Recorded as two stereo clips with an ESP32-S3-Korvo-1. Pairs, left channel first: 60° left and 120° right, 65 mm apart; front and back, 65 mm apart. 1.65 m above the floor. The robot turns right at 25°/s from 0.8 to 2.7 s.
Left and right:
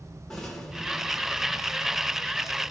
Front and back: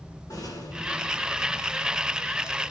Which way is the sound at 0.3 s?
25° right.